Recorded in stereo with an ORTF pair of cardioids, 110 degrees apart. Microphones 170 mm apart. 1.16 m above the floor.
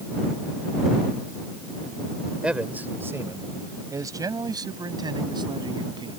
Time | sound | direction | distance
2.4 | a man speaking | 5° right | ?